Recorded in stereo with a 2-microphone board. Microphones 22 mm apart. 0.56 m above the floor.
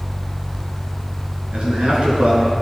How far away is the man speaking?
About 6 m.